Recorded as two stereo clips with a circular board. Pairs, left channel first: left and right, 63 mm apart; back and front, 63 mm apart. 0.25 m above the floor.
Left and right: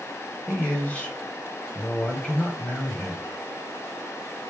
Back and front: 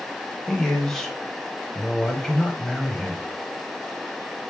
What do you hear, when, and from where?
0.5 s a man speaking: 105° left, 0.9 m